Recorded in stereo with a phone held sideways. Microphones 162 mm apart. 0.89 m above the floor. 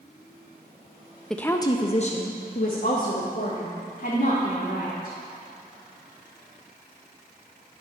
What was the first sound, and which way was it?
A woman speaking, centre (ahead or behind).